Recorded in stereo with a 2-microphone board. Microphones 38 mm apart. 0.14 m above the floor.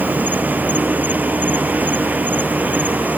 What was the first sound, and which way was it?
An insect, 50° right (ahead or behind).